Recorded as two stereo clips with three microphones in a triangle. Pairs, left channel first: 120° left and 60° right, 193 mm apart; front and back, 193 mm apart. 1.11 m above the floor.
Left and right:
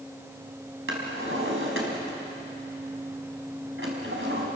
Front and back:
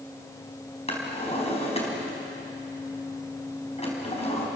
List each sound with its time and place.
0.9 s a drawer: 60° right, 4.5 m